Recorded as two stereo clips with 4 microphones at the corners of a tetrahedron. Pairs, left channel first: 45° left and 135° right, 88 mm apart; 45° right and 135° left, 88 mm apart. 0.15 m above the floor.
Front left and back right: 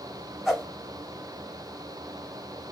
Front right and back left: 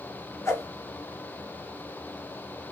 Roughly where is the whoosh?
Ahead right.